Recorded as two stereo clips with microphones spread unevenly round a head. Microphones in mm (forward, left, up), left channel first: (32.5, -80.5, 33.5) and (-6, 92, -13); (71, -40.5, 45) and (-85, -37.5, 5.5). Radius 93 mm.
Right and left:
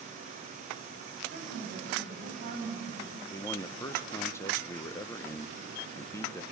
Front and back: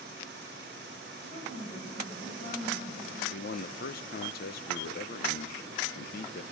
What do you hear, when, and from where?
1.2 s a woman speaking: 55° left, 8.5 m
3.3 s a man speaking: 10° right, 0.7 m